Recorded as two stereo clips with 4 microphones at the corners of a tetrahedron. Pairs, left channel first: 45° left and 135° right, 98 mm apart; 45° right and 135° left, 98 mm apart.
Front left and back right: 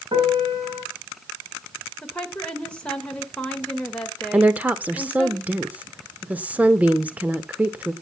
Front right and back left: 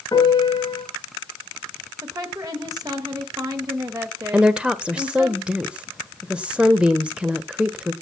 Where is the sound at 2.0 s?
120° left, 1.3 m.